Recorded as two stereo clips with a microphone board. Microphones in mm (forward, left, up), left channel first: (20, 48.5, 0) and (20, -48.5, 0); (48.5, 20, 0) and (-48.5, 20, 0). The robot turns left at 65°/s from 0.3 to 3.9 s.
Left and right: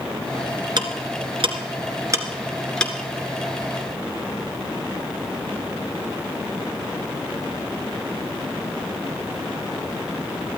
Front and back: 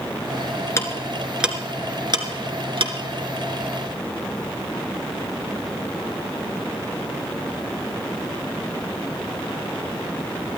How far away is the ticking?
About 2.0 m.